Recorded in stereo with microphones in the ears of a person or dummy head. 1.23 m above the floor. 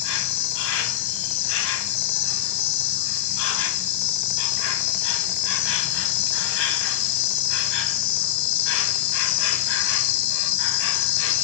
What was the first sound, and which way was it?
An insect, 65° left (ahead or behind).